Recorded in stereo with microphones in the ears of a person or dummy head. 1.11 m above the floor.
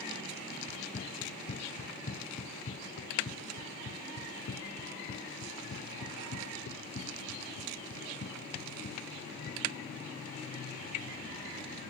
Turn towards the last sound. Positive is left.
turn(degrees=65)  # may be behind; listen again after turning